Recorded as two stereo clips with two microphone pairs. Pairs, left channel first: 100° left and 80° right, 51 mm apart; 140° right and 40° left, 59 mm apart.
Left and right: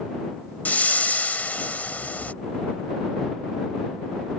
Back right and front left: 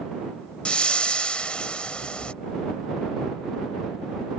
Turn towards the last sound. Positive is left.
turn(degrees=155)